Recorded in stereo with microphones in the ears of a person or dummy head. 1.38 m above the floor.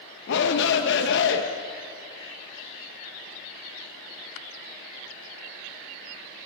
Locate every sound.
0.3 s a shout: 65° left (ahead or behind), 1.7 m